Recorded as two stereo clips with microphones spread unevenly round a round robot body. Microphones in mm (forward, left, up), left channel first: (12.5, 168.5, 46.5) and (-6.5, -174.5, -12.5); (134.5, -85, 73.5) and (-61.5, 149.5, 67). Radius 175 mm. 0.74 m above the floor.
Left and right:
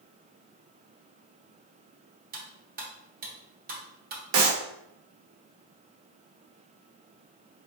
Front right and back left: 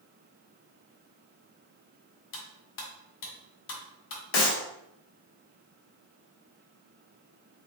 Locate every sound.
2.3 s cutlery clinking: 30° right, 1.2 m
4.3 s a clap: 55° right, 1.2 m